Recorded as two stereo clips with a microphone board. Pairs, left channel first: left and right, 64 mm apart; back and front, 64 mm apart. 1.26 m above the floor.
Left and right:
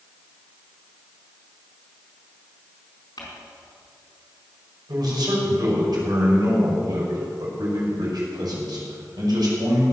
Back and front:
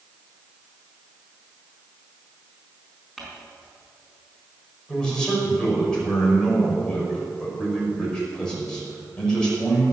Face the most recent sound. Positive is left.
turn(degrees=-100)